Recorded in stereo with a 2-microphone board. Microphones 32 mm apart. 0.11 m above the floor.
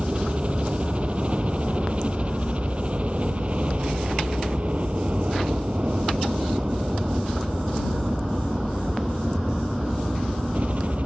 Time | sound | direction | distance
0.0 | a helicopter | 40° right (ahead or behind) | ?